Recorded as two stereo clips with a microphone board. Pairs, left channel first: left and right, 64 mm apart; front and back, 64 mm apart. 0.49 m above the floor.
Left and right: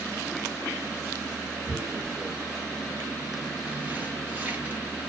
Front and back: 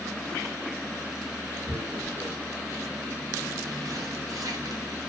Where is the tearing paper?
155° right, 0.7 m.